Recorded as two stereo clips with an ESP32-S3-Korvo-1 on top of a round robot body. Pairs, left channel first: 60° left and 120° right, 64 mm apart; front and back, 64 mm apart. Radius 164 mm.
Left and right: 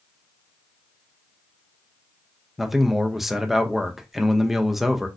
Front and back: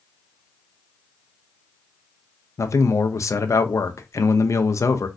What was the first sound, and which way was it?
A man speaking, 35° right.